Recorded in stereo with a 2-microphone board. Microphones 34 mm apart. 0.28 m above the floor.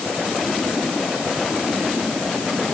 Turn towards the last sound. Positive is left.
No sound to turn to.